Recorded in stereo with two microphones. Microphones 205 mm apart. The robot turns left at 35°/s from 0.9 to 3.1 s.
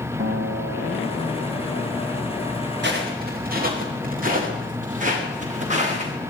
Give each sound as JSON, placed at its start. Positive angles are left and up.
{"t": 0.2, "sound": "a guitar", "azimuth_deg": -75, "distance_m": 1.8}
{"t": 2.8, "sound": "footsteps", "side_deg": -60, "distance_m": 8.0}